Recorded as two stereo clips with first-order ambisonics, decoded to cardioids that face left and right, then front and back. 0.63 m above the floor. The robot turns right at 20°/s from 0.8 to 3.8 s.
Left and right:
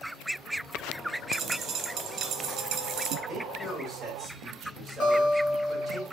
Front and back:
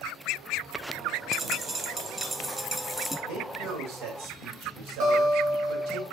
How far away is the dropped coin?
About 0.5 m.